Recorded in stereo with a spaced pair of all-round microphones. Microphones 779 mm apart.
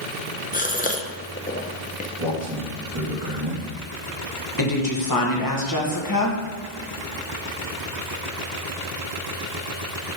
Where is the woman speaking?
25° left (ahead or behind), 1.2 m.